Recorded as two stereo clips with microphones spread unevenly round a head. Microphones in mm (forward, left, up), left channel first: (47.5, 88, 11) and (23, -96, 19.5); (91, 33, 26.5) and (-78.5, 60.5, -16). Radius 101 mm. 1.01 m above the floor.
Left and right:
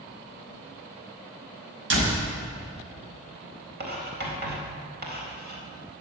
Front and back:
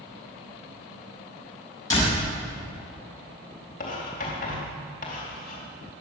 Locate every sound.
1.9 s a door slam: 85° right, 5.5 m
3.8 s writing: 60° right, 4 m